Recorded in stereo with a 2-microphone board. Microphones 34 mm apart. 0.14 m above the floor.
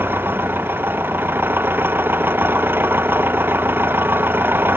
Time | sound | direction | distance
0.0 | an engine running | 80° right | ?